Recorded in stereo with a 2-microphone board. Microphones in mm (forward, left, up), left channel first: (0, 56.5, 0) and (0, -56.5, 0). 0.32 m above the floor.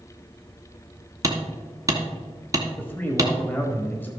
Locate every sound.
1.2 s hammering: 30° right (ahead or behind), 1.4 m
2.8 s a man speaking: 15° left (ahead or behind), 1.2 m